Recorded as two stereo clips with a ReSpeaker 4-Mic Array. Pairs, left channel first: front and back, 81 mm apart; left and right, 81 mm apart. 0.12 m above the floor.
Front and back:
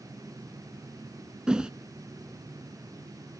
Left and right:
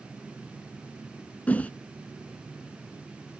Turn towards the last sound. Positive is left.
turn(degrees=120)